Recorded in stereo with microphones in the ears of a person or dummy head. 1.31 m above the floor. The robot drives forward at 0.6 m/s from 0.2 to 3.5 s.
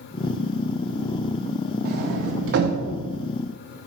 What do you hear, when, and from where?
1.9 s a sliding door: 55° right (ahead or behind), 0.6 m; by 3.0 s 45° right (ahead or behind), 0.6 m